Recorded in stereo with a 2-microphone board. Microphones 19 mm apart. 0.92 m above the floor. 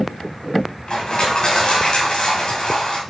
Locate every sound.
0.9 s crushing: 55° left (ahead or behind), 2.5 m